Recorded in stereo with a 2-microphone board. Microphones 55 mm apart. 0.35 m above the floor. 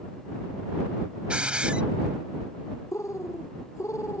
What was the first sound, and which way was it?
A hiss, 20° right (ahead or behind).